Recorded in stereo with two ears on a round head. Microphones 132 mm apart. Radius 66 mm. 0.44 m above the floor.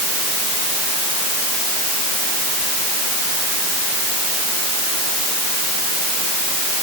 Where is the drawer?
I don't hear a drawer.